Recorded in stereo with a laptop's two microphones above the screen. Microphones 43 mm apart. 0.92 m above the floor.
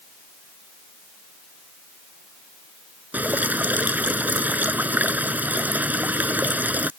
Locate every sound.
3.1 s dripping: 40° right (ahead or behind)